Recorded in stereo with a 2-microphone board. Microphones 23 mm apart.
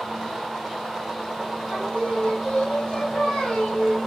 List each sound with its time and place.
1.7 s singing: 75° left (ahead or behind), 2.5 m